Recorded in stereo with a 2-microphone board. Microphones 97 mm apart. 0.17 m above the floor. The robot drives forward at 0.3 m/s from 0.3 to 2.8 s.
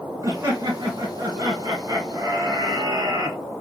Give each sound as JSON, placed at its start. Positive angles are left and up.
{"t": 0.2, "sound": "laughter", "side_deg": -35, "distance_m": 1.4}